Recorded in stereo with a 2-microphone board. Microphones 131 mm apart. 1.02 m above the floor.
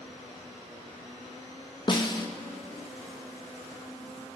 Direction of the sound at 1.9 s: 35° left (ahead or behind).